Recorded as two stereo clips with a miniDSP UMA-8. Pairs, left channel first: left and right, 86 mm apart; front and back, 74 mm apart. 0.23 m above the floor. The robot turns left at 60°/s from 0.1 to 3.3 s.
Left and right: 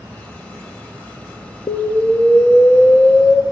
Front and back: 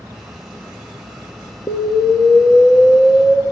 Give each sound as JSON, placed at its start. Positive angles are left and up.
{"t": 1.7, "sound": "an explosion", "azimuth_deg": 55, "distance_m": 0.8}